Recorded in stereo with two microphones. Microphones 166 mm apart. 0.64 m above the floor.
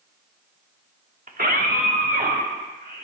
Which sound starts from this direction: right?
A scream, at 1.3 s.